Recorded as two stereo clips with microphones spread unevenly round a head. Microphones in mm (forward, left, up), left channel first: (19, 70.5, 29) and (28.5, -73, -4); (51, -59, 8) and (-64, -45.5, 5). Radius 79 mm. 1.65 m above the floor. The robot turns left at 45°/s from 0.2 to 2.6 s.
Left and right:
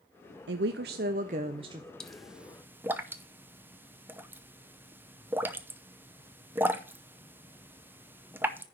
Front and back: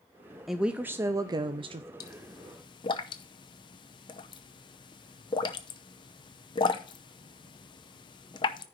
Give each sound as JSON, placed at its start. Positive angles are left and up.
{"t": 0.5, "sound": "a woman speaking", "azimuth_deg": -95, "distance_m": 0.5}
{"t": 2.0, "sound": "a pop", "azimuth_deg": 30, "distance_m": 0.6}